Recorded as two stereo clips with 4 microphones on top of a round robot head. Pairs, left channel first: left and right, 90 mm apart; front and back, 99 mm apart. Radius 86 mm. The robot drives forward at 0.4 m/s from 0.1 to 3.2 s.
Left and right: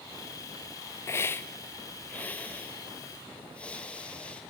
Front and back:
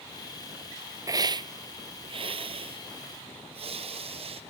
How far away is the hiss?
About 0.5 m.